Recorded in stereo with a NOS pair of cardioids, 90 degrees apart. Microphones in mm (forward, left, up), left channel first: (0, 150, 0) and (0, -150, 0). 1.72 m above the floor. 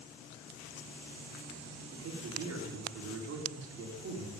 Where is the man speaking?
55° right, 4.5 m.